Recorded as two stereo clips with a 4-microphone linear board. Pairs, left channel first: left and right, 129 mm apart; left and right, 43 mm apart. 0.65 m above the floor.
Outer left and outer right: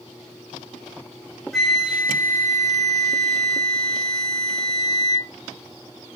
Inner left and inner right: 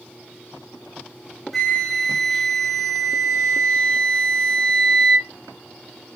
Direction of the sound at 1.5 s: 5° left (ahead or behind).